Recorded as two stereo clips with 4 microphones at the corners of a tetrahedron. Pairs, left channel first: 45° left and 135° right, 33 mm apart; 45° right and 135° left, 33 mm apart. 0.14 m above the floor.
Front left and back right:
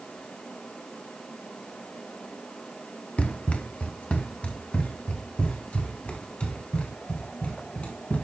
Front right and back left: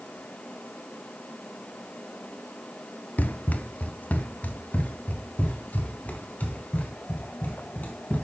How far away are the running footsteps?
About 0.7 m.